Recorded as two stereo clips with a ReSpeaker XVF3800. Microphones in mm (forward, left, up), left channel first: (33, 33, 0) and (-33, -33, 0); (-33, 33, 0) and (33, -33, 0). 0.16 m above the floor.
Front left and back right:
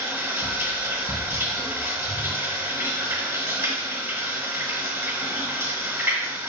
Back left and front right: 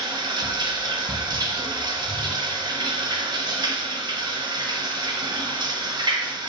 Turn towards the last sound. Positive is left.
turn(degrees=-70)